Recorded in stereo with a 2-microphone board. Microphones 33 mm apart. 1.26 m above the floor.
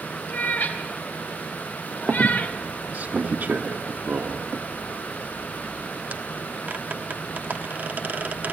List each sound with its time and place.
0.3 s a cat meowing: 75° left (ahead or behind), 3 m; by 2.6 s 55° left (ahead or behind), 1.1 m
2.1 s a squeak: 65° right (ahead or behind), 1.3 m